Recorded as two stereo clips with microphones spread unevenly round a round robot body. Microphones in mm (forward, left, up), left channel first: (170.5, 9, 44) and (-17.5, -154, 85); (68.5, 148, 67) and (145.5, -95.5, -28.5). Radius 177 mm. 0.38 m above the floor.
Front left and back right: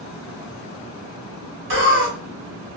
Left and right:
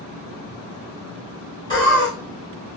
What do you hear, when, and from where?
1.7 s laughter: 160° right, 1.0 m